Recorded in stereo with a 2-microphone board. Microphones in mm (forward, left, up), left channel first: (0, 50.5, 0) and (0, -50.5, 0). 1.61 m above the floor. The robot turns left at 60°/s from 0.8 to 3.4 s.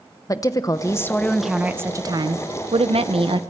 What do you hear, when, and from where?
0.3 s a woman speaking: 35° left, 1.0 m; by 3.4 s 120° right, 1.0 m